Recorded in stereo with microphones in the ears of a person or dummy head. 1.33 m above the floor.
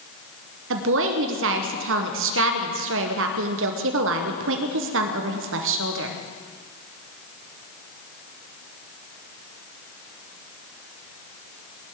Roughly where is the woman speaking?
Right.